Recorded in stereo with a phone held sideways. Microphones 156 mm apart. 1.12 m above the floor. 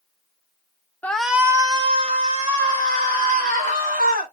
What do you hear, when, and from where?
1.0 s a shout: 10° left (ahead or behind), 0.6 m; by 4.3 s 70° right (ahead or behind), 2 m